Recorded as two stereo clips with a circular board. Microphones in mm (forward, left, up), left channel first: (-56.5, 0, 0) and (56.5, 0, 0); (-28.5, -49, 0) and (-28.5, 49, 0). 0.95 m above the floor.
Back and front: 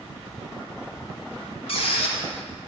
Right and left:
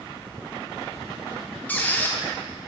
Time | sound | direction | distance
1.7 | a squeak | 160° right | 0.7 m